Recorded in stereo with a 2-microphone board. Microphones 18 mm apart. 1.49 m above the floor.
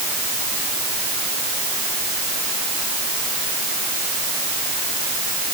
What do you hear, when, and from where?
Only background noise.